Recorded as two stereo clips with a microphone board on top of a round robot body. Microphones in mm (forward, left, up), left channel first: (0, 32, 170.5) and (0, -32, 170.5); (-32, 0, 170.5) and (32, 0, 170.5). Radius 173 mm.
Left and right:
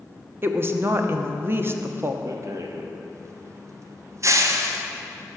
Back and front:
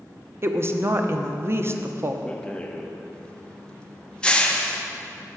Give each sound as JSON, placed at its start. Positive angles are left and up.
{"t": 0.4, "sound": "a woman speaking", "azimuth_deg": -40, "distance_m": 1.2}
{"t": 2.2, "sound": "a rattle", "azimuth_deg": -110, "distance_m": 1.3}